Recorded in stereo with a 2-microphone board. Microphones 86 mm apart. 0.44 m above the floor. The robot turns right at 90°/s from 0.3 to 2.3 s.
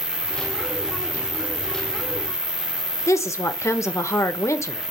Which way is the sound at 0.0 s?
75° right.